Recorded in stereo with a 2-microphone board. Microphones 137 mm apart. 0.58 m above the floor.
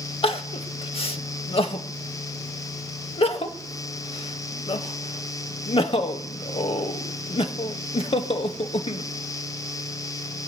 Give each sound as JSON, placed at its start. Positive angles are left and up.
{"t": 0.2, "sound": "crying", "side_deg": 45, "distance_m": 0.6}